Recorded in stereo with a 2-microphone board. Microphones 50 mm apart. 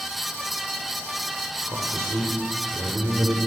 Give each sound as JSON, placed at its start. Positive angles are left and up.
{"t": 1.7, "sound": "a man speaking", "side_deg": -70, "distance_m": 4.0}